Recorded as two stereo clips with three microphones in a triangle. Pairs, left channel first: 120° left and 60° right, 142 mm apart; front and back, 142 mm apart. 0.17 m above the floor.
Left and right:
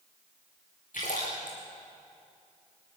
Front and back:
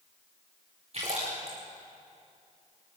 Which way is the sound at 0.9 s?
135° left.